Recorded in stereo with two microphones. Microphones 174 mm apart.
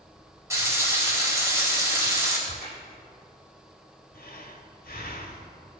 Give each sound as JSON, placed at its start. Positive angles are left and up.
{"t": 0.5, "sound": "frying", "side_deg": -15, "distance_m": 3.5}
{"t": 2.5, "sound": "a crack", "side_deg": 60, "distance_m": 4.0}
{"t": 4.1, "sound": "breathing", "side_deg": 60, "distance_m": 1.2}